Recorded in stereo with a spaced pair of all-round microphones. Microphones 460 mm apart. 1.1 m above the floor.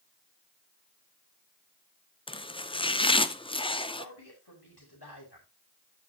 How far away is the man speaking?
About 6 m.